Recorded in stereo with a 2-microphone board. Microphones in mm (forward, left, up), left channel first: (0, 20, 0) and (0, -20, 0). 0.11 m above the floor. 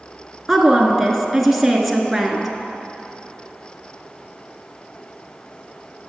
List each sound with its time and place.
0.5 s a woman speaking: 5° right (ahead or behind), 1.2 m